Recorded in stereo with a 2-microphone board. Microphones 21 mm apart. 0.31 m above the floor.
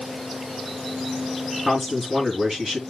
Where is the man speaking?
25° right (ahead or behind), 5 m.